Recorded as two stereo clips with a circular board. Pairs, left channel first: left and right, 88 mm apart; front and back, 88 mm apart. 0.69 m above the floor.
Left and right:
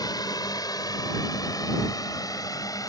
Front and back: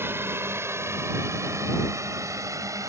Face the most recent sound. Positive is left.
turn(degrees=130)